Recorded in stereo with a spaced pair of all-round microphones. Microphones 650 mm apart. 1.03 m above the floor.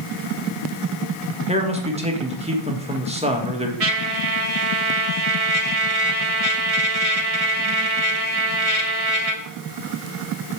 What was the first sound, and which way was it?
A man speaking, 10° right (ahead or behind).